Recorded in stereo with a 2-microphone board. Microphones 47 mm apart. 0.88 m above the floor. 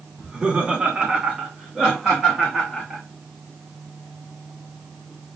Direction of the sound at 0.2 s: 20° right (ahead or behind).